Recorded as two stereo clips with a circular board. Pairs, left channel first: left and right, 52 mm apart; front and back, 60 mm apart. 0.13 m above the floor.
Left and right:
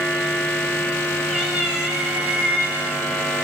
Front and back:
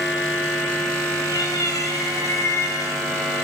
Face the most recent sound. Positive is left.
turn(degrees=-25)